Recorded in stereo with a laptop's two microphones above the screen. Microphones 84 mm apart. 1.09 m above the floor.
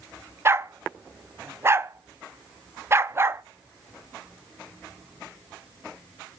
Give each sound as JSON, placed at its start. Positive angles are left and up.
{"t": 0.5, "sound": "a dog barking", "side_deg": -30, "distance_m": 0.5}